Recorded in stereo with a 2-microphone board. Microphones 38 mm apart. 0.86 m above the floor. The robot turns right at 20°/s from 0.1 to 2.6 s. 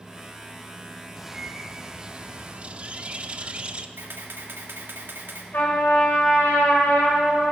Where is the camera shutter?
70° right (ahead or behind), 1.6 m.